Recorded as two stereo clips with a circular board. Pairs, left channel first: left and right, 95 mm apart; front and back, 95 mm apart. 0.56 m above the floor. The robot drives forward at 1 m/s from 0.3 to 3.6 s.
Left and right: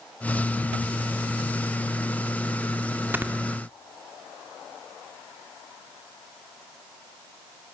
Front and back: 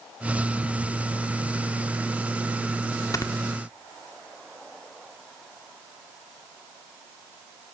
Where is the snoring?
30° right, 1.7 m; by 3.3 s 35° right, 1.6 m.